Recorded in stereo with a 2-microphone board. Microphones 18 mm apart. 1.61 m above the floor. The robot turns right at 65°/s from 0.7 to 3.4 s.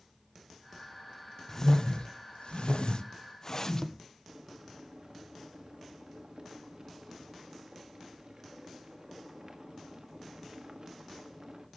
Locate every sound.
1.5 s a whoosh: 25° left (ahead or behind), 1.0 m; by 4.0 s 30° left (ahead or behind), 1.0 m
4.3 s boiling: 45° right (ahead or behind), 1.6 m